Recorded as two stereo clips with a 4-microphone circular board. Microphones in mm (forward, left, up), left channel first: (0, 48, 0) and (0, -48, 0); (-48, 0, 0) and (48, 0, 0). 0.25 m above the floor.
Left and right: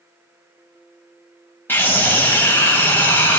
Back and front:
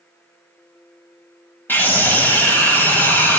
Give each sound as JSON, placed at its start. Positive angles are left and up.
{"t": 1.7, "sound": "a scream", "azimuth_deg": 135, "distance_m": 1.7}